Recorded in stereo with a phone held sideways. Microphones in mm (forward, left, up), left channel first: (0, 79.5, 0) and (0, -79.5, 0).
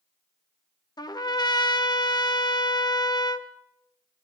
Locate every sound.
1.0 s a trumpet: 25° left (ahead or behind), 0.8 m